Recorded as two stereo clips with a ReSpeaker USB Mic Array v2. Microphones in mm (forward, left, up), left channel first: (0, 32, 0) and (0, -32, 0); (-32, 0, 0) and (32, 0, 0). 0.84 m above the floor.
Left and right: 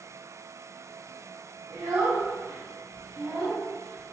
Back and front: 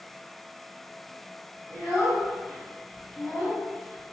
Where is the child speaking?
105° right, 1.1 m.